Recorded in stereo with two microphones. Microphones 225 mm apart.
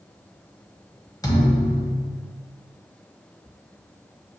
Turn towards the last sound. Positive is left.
turn(degrees=15)  # may be behind; listen again after turning